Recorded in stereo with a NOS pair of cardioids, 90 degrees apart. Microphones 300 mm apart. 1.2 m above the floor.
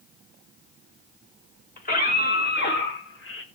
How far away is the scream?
About 6.5 m.